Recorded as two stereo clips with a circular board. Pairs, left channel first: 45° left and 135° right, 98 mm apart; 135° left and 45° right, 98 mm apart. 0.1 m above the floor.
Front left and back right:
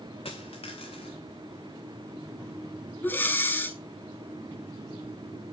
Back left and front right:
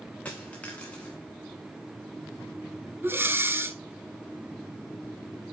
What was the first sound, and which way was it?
A dropped coin, 60° left.